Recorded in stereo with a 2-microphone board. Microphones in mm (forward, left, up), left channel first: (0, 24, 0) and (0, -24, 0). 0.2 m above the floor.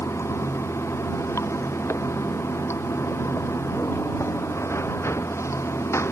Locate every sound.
0.0 s running water: 70° left (ahead or behind)